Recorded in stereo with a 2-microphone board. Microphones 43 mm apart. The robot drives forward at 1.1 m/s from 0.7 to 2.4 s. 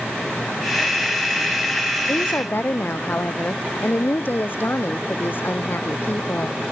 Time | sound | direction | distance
2.1 | a woman speaking | 50° left (ahead or behind) | ?